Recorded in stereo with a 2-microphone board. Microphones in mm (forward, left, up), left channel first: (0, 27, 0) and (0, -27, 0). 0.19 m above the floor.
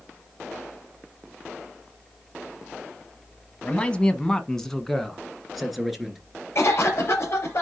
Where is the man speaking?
25° left (ahead or behind), 1.0 m; by 6.2 s centre (ahead or behind), 2.5 m.